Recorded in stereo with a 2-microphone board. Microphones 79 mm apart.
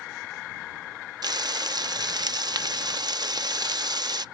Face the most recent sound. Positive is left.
turn(degrees=-60)  # may be behind; listen again after turning